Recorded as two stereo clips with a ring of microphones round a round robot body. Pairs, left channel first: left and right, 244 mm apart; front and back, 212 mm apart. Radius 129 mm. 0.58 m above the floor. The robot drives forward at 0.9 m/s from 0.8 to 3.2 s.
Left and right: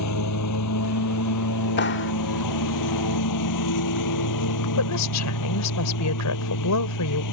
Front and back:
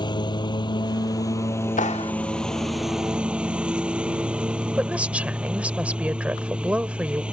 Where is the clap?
50° left; by 2.1 s 65° left.